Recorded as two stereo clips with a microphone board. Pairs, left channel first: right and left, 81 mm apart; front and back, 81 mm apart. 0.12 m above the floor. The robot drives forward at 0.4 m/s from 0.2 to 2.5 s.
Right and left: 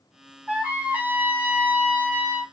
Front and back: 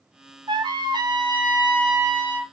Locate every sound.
0.5 s a trumpet: 155° left, 1.1 m; by 2.4 s 165° left, 1.9 m